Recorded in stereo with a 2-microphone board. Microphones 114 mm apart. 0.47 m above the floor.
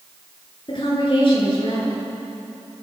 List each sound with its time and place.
0.7 s a woman speaking: 50° left (ahead or behind), 8 m